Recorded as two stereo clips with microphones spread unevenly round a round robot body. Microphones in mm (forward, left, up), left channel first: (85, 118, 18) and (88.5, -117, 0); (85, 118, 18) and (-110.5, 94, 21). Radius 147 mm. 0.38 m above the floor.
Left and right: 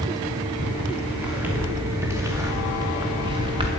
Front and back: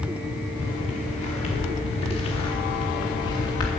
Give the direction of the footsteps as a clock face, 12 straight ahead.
12 o'clock.